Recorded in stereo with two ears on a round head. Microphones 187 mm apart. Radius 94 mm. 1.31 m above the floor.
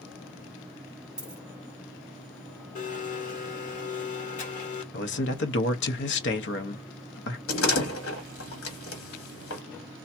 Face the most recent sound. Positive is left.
turn(degrees=70)  # may be behind; listen again after turning